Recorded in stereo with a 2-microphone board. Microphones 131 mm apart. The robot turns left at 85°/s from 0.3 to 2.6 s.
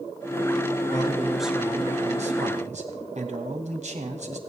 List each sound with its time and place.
0.9 s a man speaking: 45° left, 2 m; by 4.4 s 105° right, 2 m